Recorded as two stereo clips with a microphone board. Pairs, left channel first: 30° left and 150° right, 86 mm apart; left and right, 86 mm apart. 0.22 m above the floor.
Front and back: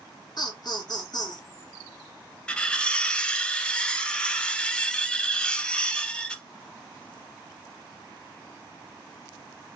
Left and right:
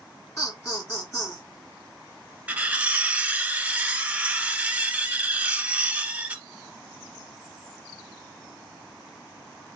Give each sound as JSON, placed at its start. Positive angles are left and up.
{"t": 0.4, "sound": "laughter", "azimuth_deg": 40, "distance_m": 1.7}
{"t": 2.5, "sound": "cutlery clinking", "azimuth_deg": -35, "distance_m": 0.6}